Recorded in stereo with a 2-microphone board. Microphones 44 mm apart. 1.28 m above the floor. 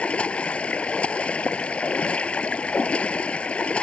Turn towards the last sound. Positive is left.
turn(degrees=25)  # may be behind; listen again after turning